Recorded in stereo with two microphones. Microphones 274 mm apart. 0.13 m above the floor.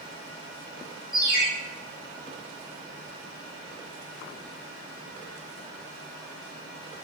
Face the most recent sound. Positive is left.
turn(degrees=30)  # may be behind; listen again after turning